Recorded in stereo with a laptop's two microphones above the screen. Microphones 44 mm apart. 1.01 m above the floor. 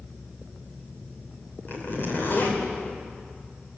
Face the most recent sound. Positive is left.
turn(degrees=50)  # may be behind; listen again after turning